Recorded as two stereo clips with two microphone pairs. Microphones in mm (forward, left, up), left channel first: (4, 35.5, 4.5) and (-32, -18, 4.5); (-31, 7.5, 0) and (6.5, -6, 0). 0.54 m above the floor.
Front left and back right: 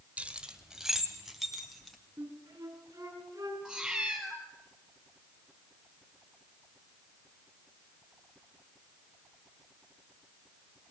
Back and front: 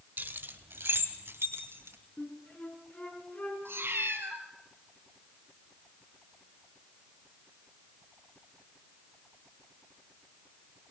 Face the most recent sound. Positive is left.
turn(degrees=-45)